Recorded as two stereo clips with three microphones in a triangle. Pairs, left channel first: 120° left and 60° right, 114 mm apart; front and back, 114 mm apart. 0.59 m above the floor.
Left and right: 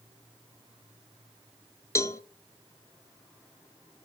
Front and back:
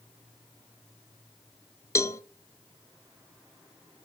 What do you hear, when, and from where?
1.9 s a cowbell: 60° left, 0.5 m